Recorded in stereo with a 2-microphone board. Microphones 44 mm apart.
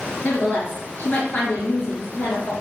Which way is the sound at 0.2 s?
40° left (ahead or behind).